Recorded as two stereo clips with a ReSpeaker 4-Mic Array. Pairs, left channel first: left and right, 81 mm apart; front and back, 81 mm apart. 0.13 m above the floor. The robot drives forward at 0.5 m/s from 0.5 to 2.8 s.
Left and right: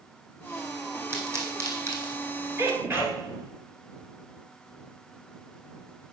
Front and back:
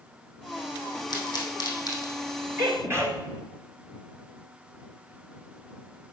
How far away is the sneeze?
About 2 m.